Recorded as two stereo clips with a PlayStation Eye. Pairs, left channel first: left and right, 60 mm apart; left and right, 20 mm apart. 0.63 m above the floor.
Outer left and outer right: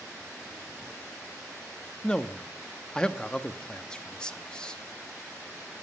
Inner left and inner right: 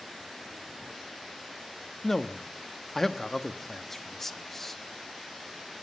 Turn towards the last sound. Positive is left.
turn(degrees=15)  # may be behind; listen again after turning